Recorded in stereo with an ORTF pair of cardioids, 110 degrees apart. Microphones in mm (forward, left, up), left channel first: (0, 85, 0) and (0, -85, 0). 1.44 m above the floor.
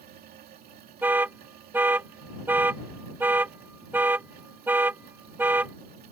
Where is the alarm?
10° right.